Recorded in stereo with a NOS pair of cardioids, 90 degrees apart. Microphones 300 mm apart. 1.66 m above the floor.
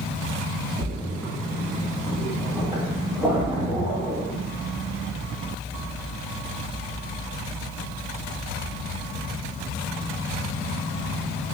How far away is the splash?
About 1.7 m.